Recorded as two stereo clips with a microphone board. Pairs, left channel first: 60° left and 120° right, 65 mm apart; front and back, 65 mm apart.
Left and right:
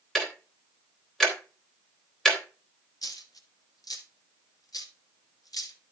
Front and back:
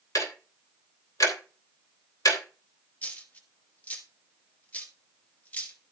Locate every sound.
0.1 s ticking: 25° right, 3 m
3.0 s a dropped coin: 65° left, 1.6 m